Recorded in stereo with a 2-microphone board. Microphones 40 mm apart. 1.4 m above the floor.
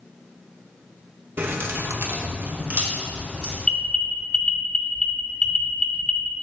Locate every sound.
1.4 s keys jangling: 55° right (ahead or behind), 1.2 m; by 3.5 s 30° right (ahead or behind), 3 m
3.6 s an alarm: 15° left (ahead or behind), 0.8 m